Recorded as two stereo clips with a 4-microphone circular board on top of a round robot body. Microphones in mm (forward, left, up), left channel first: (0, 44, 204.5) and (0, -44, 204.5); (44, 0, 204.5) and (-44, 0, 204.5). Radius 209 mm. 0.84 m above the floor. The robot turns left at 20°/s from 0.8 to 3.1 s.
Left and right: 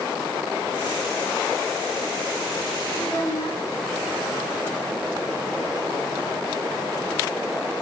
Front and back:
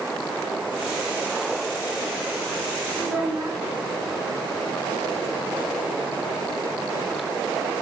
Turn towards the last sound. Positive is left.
turn(degrees=105)